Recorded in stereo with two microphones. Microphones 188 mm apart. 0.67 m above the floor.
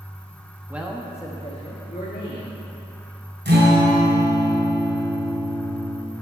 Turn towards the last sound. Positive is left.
turn(degrees=-70)  # may be behind; listen again after turning